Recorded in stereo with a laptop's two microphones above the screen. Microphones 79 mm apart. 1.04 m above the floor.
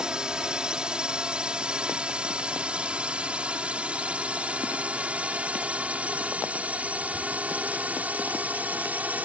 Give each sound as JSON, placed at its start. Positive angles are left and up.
{"t": 0.0, "sound": "a drone", "side_deg": -10}